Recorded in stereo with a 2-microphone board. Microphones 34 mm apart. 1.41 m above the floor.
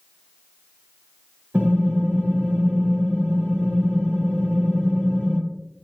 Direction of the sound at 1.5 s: 70° right (ahead or behind).